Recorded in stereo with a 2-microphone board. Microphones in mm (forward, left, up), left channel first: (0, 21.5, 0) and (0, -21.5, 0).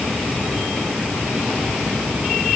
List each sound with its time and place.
Only background noise.